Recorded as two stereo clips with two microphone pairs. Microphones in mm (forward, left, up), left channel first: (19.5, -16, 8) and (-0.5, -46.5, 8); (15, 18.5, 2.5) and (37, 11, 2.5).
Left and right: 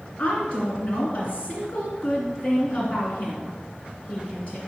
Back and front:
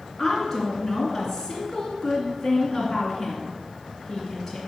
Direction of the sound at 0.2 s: 85° left.